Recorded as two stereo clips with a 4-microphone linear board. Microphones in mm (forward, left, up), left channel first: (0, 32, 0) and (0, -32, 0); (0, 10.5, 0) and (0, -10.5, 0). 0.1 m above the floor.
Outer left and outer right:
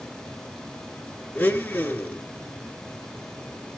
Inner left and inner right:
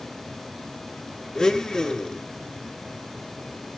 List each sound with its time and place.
1.4 s a blender: 25° left (ahead or behind), 1.3 m